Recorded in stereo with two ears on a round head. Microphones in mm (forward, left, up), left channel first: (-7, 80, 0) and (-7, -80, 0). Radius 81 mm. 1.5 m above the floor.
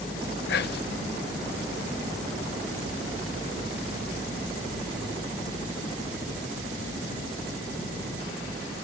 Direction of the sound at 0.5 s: 65° left (ahead or behind).